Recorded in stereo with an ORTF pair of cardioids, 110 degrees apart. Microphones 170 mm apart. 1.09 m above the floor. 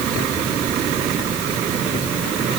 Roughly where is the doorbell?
I don't hear a doorbell.